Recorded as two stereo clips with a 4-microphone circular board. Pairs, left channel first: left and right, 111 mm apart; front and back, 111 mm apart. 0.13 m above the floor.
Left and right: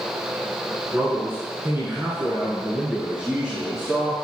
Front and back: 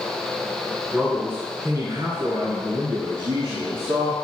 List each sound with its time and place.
0.9 s a man speaking: 115° right, 1.2 m; by 4.2 s 175° right, 2.5 m